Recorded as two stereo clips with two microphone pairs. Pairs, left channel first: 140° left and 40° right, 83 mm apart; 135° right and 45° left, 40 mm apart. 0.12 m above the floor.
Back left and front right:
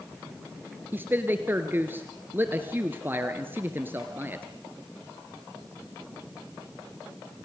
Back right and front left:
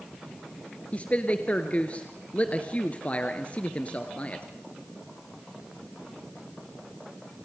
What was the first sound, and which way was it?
A man speaking, 95° right.